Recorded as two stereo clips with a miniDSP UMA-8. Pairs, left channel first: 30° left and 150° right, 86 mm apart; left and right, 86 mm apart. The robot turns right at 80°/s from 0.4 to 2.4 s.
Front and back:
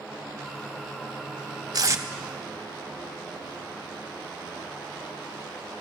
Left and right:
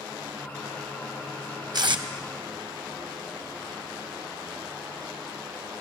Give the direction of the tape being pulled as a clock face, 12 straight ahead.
4 o'clock.